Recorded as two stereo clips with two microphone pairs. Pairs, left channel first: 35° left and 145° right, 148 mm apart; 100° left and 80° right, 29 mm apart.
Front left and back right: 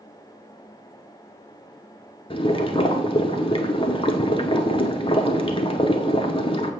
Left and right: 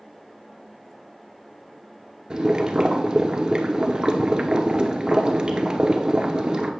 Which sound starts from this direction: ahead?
Boiling, at 2.3 s.